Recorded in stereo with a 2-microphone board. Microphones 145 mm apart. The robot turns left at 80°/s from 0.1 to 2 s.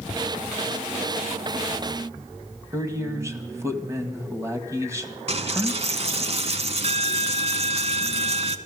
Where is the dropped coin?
45° right (ahead or behind), 0.7 m.